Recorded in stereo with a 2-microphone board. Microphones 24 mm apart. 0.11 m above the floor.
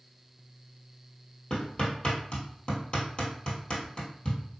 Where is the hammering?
40° left (ahead or behind), 1.7 m.